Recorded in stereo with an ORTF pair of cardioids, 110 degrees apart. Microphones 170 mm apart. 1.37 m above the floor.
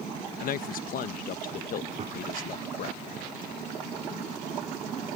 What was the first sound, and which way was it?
A man speaking, 55° left.